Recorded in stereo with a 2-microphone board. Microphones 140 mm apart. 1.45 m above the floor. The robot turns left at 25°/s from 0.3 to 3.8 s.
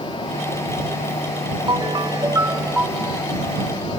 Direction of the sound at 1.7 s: 135° right.